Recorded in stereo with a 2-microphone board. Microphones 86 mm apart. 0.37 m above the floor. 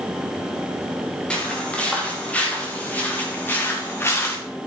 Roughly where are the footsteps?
Centre.